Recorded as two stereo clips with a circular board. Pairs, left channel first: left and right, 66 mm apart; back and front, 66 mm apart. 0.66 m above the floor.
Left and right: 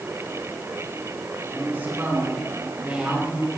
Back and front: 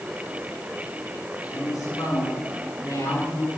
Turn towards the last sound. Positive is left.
turn(degrees=-175)